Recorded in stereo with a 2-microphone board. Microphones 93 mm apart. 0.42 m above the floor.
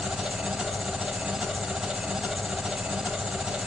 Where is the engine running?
5° right (ahead or behind), 1.1 m.